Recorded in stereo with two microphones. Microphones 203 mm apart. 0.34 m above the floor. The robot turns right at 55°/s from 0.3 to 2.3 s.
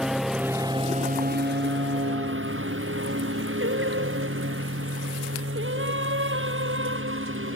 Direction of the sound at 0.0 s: 5° right (ahead or behind).